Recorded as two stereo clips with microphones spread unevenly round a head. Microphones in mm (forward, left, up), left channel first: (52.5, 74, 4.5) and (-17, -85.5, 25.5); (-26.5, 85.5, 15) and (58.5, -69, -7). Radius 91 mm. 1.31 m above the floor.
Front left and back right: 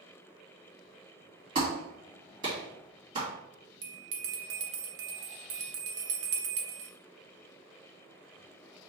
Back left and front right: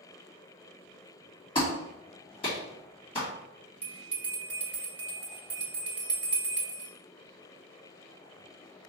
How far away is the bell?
About 1.0 m.